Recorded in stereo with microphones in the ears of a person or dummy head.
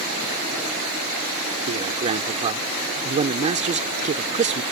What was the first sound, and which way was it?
A man speaking, 30° right (ahead or behind).